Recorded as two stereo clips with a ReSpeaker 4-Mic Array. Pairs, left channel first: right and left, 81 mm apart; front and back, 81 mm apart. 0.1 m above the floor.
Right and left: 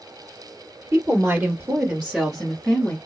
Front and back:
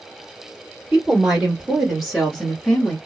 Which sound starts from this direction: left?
A woman speaking, at 0.9 s.